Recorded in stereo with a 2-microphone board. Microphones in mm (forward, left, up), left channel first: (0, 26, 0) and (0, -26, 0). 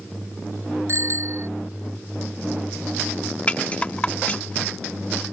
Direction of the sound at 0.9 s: 60° right (ahead or behind).